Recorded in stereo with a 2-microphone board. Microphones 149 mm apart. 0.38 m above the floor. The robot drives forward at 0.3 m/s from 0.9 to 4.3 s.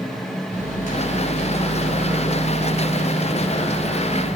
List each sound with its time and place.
0.5 s a microwave: 55° left (ahead or behind), 1.1 m; by 4.4 s 35° left (ahead or behind), 1.4 m